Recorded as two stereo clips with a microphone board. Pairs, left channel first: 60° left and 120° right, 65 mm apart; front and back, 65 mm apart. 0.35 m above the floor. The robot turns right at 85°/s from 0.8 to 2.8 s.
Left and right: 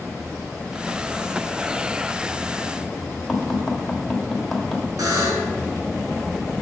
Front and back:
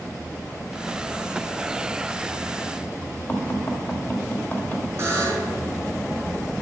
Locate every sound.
3.3 s tapping: 25° right, 1.4 m
5.0 s a buzzer: 135° right, 2 m